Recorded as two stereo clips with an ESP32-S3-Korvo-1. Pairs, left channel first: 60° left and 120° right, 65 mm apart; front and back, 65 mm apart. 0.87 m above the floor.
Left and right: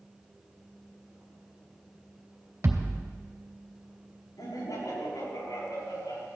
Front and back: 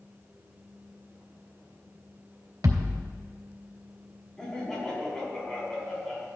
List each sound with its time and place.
2.6 s a thud: 160° right, 2 m
4.4 s laughter: 80° left, 7 m